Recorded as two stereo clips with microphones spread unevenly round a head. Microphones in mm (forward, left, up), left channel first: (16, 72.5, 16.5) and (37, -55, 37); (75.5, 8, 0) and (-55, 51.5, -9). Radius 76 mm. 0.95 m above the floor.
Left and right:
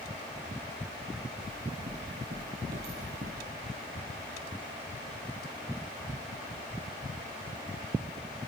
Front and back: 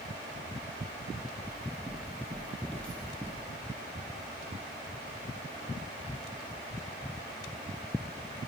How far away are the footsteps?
About 2.5 m.